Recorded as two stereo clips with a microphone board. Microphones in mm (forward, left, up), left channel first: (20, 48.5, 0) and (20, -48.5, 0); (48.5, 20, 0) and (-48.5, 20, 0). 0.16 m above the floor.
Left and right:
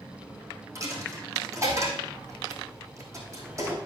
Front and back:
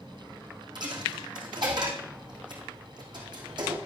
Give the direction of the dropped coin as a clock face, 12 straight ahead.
5 o'clock.